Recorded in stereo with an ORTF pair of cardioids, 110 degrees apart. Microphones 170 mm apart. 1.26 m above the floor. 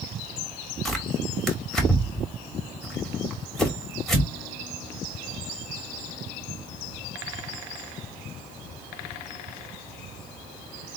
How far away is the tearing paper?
About 2.0 m.